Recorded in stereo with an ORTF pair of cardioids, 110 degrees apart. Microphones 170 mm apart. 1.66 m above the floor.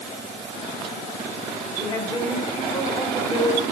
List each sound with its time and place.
1.8 s a woman speaking: 20° left, 7.5 m